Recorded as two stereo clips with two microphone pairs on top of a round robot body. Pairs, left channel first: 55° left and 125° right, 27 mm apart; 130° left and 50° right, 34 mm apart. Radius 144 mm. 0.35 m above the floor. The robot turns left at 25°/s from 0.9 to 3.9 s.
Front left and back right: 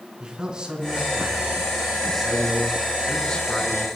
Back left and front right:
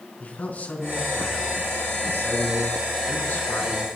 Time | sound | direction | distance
0.2 | a man speaking | 175° left | 5 m